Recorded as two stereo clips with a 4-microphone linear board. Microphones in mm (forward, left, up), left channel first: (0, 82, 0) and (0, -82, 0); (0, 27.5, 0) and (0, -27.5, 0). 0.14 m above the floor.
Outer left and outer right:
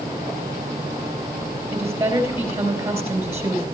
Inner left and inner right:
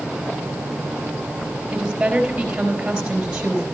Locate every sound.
1.7 s a woman speaking: 15° right (ahead or behind), 4 m